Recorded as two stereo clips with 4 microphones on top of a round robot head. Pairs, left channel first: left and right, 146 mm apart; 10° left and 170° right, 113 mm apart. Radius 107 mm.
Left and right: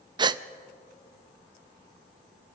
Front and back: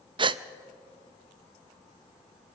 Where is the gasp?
140° right, 0.5 m.